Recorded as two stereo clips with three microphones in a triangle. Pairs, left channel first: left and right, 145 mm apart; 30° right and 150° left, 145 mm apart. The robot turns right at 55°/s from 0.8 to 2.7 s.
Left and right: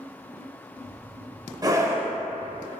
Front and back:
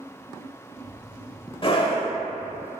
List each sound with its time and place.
1.6 s a scream: 45° right, 1.0 m; by 2.1 s 20° right, 1.0 m